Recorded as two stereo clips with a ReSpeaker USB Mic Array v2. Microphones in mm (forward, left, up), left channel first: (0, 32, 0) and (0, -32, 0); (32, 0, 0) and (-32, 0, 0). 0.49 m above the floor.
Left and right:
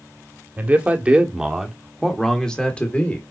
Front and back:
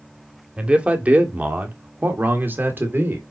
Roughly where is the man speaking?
Behind right.